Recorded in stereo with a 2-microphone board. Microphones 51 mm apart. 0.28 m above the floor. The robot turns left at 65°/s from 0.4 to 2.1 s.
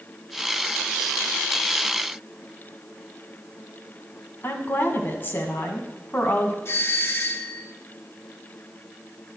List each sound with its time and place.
4.4 s a woman speaking: 45° left (ahead or behind), 2 m
6.7 s a doorbell: 55° left (ahead or behind), 2.5 m